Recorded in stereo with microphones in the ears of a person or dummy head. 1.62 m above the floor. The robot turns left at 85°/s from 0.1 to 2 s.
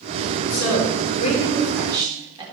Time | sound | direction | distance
0.5 | a woman speaking | 100° left | 4.5 m